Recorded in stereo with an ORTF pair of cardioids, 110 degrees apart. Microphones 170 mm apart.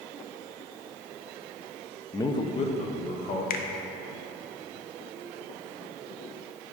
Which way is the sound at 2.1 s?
15° left.